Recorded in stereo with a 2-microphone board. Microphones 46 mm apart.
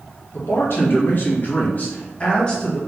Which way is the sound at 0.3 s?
65° left (ahead or behind).